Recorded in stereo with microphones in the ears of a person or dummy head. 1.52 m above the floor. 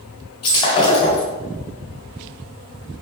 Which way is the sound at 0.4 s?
25° left (ahead or behind).